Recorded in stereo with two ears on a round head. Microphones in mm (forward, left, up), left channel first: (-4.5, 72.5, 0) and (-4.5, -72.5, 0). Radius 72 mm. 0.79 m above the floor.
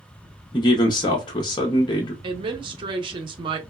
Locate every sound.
0.5 s a man speaking: 25° left (ahead or behind), 0.5 m
2.2 s a woman speaking: 30° right (ahead or behind), 0.6 m